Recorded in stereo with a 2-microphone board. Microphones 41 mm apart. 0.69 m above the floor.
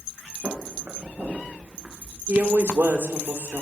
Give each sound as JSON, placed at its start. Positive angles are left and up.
{"t": 0.4, "sound": "footsteps", "side_deg": -55, "distance_m": 3.5}
{"t": 2.3, "sound": "a woman speaking", "side_deg": -65, "distance_m": 2.0}